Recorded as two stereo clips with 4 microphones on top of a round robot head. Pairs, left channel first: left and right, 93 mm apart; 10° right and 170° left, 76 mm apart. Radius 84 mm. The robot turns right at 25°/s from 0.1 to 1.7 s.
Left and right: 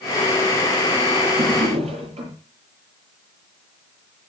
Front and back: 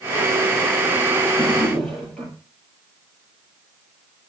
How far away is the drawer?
About 8 m.